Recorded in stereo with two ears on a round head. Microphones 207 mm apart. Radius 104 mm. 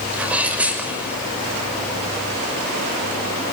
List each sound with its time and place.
0.1 s a sneeze: 5° right (ahead or behind), 6 m